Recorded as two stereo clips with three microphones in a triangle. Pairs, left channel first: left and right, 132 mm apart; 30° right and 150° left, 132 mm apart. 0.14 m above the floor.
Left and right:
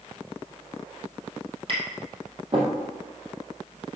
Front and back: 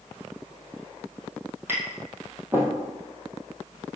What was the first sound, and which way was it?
Tapping, 135° right.